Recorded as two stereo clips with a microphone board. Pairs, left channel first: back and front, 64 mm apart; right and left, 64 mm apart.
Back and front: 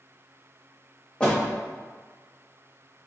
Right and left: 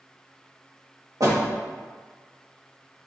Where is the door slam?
105° left, 1.5 m.